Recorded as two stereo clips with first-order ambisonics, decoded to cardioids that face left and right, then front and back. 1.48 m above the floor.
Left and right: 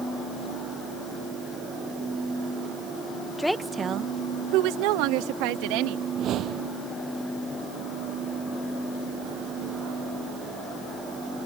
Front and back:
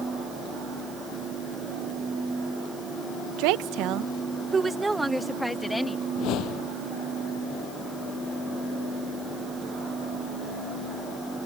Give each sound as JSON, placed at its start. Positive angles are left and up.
{"t": 3.4, "sound": "a woman speaking", "azimuth_deg": 175}
{"t": 6.2, "sound": "a whoosh", "azimuth_deg": -40}